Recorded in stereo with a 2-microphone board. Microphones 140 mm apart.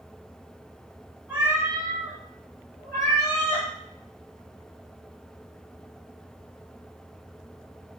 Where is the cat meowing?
15° right (ahead or behind), 1.5 m; by 3.7 s 40° left (ahead or behind), 2.0 m.